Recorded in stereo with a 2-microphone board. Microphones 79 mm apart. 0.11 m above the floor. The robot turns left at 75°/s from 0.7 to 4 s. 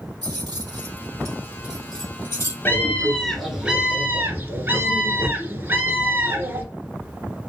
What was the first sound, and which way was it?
Keys jangling, 65° right (ahead or behind).